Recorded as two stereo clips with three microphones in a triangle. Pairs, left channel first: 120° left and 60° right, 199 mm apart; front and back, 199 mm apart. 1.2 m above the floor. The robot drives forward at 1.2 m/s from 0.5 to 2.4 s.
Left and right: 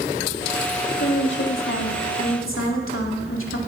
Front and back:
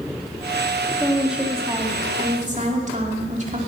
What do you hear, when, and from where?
1.0 s a woman speaking: 85° left, 2 m; by 3.6 s 125° left, 2.5 m